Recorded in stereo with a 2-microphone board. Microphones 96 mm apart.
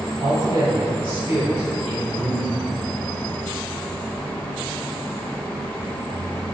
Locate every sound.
0.2 s a man speaking: 40° right (ahead or behind), 1.5 m; by 2.6 s 5° left (ahead or behind), 1.5 m